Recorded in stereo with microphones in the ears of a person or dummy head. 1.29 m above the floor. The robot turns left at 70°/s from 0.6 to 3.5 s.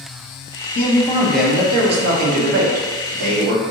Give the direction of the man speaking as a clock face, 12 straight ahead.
10 o'clock.